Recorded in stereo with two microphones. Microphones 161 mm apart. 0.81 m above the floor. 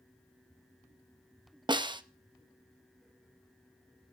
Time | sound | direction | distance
1.7 | a snare drum | 30° right (ahead or behind) | 0.6 m